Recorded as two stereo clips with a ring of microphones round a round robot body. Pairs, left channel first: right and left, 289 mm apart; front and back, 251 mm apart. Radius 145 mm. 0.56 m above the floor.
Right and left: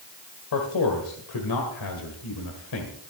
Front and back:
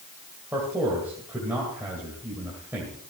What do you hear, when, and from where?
0.5 s a man speaking: 95° right, 2 m